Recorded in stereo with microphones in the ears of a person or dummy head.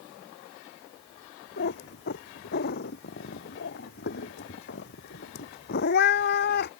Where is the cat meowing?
50° left (ahead or behind).